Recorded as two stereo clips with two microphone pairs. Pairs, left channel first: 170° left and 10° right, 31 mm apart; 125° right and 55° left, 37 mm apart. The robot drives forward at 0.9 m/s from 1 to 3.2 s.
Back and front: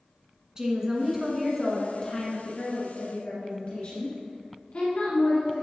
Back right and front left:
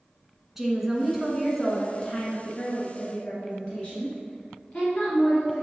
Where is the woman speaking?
20° right, 1.3 m; by 5.6 s 175° right, 2.0 m.